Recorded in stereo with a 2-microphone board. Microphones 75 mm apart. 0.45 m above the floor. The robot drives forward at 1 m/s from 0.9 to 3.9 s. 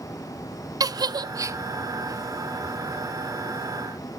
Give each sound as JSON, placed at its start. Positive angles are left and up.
{"t": 0.8, "sound": "a giggle", "side_deg": -55, "distance_m": 0.5}